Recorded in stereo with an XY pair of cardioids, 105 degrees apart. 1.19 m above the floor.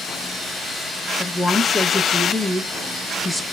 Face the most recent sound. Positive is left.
turn(degrees=5)